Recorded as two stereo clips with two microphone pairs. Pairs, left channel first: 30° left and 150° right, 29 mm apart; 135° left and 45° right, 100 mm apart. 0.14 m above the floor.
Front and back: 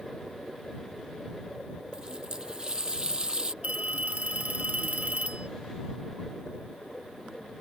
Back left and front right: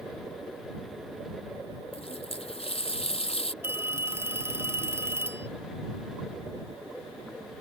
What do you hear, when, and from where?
1.9 s a running tap: 145° left
3.6 s a phone ringing: 110° right